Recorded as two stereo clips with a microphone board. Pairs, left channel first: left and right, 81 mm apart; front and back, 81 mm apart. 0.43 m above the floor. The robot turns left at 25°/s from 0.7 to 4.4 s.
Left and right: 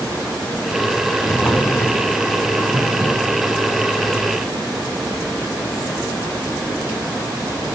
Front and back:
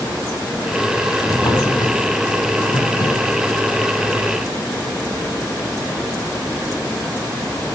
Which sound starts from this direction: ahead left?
A drawer, at 1.2 s.